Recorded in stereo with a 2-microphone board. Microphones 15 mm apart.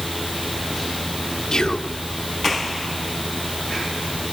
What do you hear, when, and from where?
1.5 s whispering: 40° left (ahead or behind), 1.5 m